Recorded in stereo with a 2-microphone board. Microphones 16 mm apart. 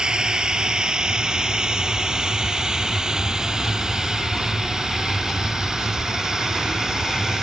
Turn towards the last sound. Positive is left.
turn(degrees=-45)  # may be behind; listen again after turning